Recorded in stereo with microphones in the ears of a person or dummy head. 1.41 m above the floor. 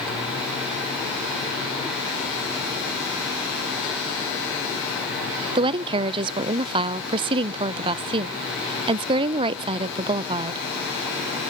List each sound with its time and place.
5.5 s a woman speaking: 35° right (ahead or behind), 0.6 m